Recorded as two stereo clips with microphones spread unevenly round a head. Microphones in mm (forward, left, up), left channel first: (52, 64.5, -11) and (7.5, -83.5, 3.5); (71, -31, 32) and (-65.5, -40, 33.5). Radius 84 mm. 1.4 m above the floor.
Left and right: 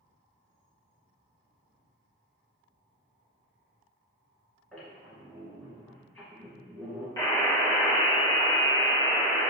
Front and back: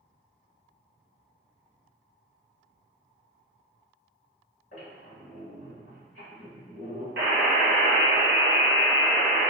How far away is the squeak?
About 1.8 m.